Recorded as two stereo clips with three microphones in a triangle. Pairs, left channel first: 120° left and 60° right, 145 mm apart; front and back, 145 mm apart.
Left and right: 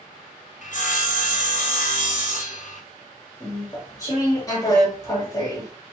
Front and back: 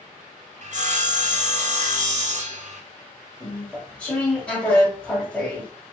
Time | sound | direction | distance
0.6 | sawing | 145° left | 0.7 m
3.4 | chewing | 75° left | 1.1 m